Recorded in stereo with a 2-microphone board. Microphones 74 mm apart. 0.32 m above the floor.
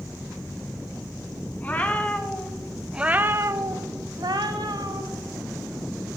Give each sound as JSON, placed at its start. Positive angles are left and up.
{"t": 1.6, "sound": "a cat meowing", "side_deg": 25, "distance_m": 1.1}